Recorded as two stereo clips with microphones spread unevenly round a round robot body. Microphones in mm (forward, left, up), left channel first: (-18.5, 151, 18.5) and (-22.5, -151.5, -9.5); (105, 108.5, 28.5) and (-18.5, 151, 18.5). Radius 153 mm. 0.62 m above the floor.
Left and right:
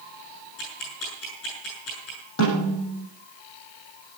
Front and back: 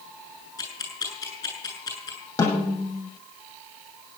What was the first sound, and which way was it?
Ticking, 40° left.